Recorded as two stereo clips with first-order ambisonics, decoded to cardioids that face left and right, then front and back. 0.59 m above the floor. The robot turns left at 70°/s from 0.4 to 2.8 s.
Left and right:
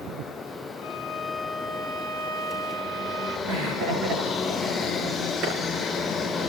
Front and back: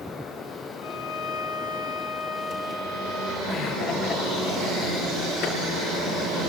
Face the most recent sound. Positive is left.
turn(degrees=-45)